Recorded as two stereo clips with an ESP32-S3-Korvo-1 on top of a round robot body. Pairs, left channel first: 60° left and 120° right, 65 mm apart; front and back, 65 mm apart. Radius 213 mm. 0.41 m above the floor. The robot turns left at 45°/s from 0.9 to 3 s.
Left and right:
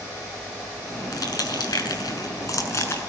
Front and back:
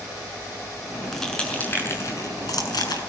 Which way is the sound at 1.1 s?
90° left.